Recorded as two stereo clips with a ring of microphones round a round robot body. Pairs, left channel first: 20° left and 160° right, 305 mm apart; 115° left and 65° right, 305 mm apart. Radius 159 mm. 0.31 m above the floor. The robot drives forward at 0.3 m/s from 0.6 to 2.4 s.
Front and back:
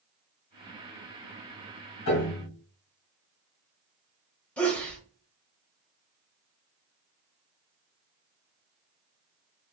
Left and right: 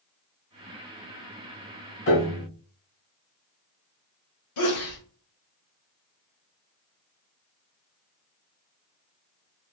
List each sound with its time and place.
2.1 s a piano: 65° left, 2 m
4.6 s a sneeze: 105° left, 1.2 m